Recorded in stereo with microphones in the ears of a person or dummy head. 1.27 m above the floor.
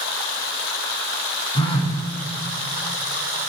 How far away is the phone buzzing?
About 1.3 m.